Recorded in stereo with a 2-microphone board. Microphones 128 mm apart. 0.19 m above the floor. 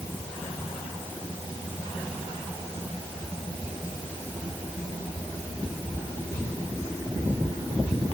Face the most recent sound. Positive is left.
No sound to turn to.